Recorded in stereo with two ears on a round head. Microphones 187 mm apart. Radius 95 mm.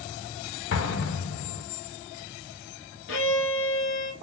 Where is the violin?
60° left (ahead or behind), 1.0 m.